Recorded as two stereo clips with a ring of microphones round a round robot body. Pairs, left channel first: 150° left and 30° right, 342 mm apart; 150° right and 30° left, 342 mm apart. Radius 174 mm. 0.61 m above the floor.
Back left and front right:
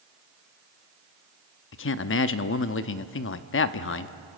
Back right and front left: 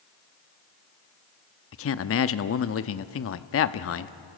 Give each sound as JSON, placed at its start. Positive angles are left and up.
{"t": 1.7, "sound": "a man speaking", "azimuth_deg": -175, "distance_m": 0.7}